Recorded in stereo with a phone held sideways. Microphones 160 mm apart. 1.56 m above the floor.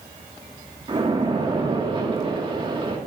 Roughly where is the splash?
Right.